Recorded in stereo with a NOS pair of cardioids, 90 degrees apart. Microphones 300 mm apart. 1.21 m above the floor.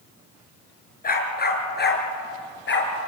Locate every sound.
1.0 s a dog barking: 30° left, 4.5 m; by 2.9 s 40° left, 5.5 m